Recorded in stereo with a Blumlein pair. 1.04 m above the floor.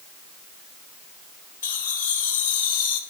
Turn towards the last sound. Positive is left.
turn(degrees=60)